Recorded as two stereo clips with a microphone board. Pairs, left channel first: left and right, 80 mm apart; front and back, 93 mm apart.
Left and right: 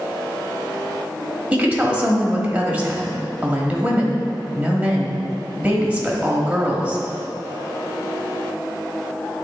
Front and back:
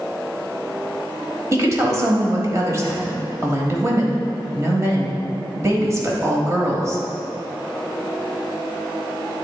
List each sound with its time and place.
1.5 s a woman speaking: 150° right, 1.2 m